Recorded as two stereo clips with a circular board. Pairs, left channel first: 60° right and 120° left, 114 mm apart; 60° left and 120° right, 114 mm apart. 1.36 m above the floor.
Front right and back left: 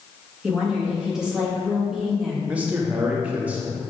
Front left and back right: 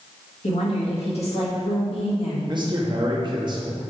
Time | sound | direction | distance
0.4 | a woman speaking | 35° left | 1.9 m
2.5 | a man speaking | 165° right | 1.1 m